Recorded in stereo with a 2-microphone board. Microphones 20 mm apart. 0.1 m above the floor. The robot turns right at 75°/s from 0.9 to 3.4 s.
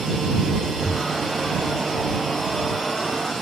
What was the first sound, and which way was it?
Breathing, 25° left (ahead or behind).